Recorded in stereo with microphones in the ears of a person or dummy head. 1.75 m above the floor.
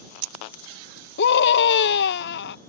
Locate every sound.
1.2 s a scream: 50° left (ahead or behind)